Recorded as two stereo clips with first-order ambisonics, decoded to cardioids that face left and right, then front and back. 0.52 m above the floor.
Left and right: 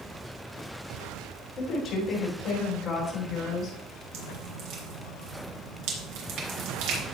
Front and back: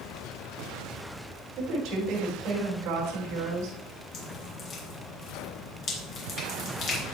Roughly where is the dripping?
Ahead right.